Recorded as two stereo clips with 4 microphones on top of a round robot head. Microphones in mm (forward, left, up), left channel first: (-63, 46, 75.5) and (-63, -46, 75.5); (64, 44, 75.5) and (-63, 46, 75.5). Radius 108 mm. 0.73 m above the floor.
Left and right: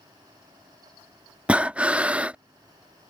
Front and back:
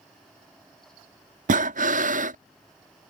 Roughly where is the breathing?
Behind.